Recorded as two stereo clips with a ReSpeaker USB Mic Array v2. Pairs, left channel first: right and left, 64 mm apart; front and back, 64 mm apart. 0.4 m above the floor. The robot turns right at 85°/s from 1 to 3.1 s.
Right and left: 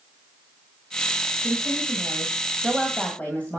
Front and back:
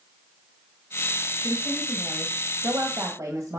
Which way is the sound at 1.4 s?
65° left.